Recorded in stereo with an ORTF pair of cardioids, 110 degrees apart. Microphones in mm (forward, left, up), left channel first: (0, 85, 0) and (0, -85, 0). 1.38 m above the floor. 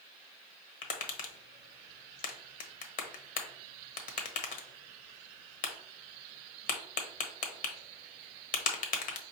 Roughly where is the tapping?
Ahead left.